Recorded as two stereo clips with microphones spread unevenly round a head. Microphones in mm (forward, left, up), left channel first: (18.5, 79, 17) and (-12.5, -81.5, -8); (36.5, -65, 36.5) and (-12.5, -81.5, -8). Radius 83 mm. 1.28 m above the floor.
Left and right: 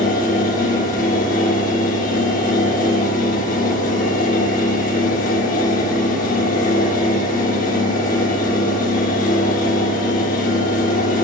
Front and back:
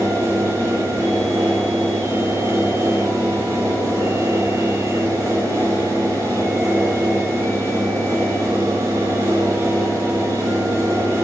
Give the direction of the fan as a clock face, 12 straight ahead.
8 o'clock.